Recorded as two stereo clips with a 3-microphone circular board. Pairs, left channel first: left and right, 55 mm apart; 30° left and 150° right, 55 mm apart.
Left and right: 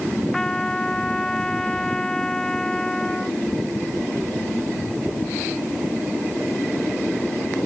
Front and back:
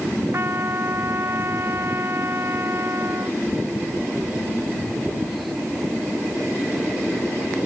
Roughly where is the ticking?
No ticking in this recording.